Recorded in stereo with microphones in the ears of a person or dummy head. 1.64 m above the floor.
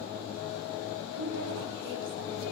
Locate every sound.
1.1 s a woman speaking: 75° right (ahead or behind), 3.5 m